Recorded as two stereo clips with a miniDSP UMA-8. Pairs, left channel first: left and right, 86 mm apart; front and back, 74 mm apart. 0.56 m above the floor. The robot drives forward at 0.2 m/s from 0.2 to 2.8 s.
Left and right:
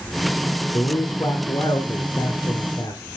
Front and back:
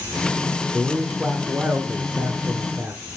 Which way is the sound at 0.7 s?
110° left.